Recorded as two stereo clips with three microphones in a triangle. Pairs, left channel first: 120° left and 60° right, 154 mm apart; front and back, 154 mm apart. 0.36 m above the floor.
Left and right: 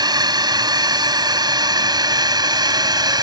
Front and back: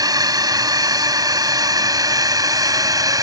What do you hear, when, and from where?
0.0 s a drone: 120° right